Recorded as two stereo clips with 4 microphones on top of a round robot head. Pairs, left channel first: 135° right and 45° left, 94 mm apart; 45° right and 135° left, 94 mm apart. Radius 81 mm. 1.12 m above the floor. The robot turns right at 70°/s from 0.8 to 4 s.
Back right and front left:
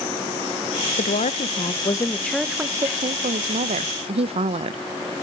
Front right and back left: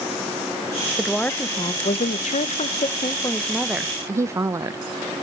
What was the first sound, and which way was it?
A woman speaking, 140° right.